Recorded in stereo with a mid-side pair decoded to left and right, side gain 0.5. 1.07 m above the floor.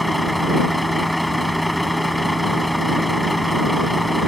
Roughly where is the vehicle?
Ahead.